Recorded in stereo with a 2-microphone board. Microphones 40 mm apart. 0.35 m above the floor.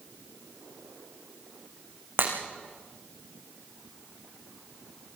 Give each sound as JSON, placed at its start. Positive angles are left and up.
{"t": 2.2, "sound": "breaking glass", "side_deg": -75, "distance_m": 6.0}